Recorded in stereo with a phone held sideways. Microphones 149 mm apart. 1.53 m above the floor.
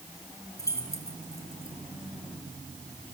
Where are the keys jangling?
20° left (ahead or behind), 3.5 m.